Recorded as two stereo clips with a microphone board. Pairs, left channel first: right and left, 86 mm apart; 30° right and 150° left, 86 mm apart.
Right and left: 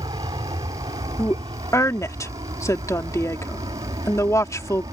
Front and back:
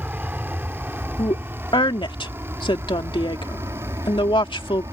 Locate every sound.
0.0 s an aircraft: 80° left; by 4.9 s 110° left
1.2 s a woman speaking: 40° right